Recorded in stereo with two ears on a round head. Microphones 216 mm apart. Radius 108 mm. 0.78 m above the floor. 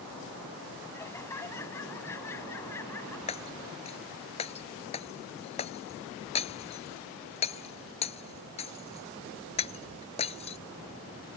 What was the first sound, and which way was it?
Laughter, 10° left (ahead or behind).